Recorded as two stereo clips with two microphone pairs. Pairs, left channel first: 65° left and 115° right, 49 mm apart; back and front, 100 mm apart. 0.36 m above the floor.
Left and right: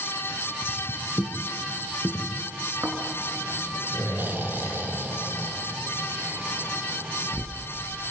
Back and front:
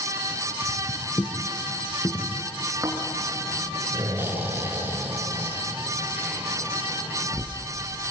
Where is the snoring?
70° right, 3 m.